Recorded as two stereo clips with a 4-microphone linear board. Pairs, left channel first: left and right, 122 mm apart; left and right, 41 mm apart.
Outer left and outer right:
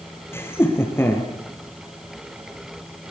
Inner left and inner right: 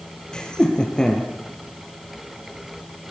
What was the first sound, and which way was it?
Laughter, 20° left (ahead or behind).